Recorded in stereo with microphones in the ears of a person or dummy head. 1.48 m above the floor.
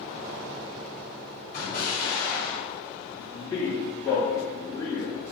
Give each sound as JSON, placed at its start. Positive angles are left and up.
{"t": 1.5, "sound": "an explosion", "side_deg": 45, "distance_m": 1.2}
{"t": 3.2, "sound": "a man speaking", "side_deg": 25, "distance_m": 1.4}